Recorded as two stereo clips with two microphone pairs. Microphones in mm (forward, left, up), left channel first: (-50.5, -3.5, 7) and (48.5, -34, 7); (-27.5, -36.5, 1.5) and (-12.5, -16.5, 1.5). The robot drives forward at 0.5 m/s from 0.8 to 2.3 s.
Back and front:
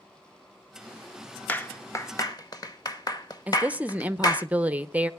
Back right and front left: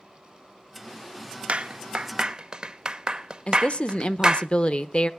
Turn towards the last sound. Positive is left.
turn(degrees=-90)